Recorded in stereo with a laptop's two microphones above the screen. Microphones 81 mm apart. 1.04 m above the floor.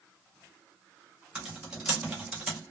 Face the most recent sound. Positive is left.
turn(degrees=-15)  # may be behind; listen again after turning